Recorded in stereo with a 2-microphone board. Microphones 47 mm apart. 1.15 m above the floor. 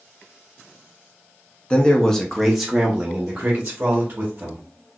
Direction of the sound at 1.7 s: 20° left (ahead or behind).